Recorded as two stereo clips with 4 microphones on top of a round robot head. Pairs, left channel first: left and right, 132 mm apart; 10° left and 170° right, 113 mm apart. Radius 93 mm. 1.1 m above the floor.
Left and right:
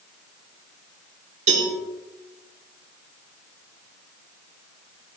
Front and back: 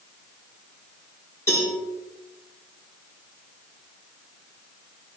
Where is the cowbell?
60° right, 5 m.